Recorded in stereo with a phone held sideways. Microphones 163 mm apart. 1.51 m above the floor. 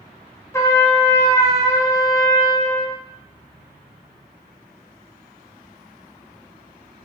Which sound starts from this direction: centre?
A trumpet, at 0.5 s.